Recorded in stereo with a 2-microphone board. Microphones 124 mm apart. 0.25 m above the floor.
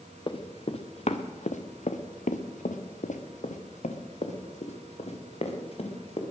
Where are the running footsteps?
45° left (ahead or behind), 1.8 m; by 6.2 s 50° left (ahead or behind), 3.5 m.